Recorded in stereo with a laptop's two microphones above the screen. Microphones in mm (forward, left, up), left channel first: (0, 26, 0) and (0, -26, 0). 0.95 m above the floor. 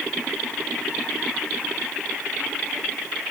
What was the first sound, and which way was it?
Only background noise.